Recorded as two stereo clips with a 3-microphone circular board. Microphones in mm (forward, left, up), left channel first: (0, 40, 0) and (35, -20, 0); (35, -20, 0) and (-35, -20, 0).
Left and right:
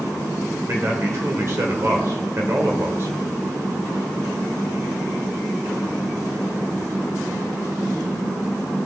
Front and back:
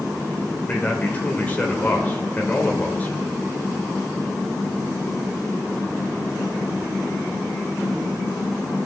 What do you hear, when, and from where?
0.7 s a man speaking: 55° right, 1.3 m